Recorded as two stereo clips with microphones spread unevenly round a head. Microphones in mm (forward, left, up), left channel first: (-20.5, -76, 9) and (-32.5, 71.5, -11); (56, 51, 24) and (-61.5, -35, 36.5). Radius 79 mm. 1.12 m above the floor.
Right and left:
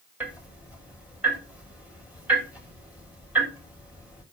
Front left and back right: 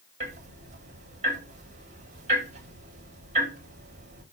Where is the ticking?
175° left, 4 m.